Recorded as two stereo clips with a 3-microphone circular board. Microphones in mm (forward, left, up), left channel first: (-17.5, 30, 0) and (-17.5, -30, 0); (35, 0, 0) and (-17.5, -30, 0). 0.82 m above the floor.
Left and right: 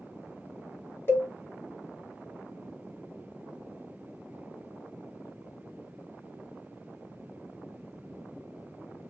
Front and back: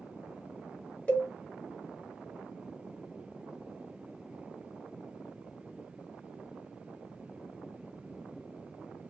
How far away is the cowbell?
About 0.8 m.